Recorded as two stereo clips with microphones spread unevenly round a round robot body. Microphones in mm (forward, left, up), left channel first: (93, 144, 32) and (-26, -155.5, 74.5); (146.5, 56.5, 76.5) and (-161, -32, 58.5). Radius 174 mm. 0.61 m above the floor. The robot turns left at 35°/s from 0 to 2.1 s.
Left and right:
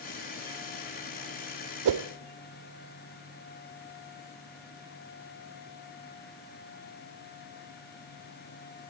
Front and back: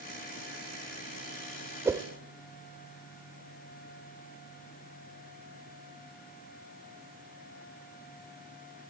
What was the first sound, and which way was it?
A whoosh, 80° right.